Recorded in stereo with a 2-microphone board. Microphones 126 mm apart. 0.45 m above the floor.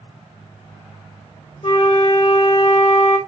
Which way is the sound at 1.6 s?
60° left (ahead or behind).